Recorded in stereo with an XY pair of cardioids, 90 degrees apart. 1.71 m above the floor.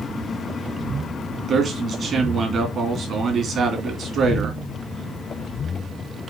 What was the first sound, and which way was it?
A man speaking, 65° right.